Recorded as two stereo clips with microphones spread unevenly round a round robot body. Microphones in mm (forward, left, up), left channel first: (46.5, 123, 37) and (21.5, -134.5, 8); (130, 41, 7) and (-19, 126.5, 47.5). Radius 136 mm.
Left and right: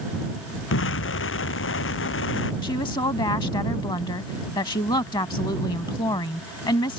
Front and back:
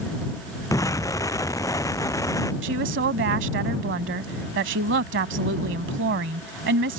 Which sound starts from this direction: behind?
A woman speaking, at 2.6 s.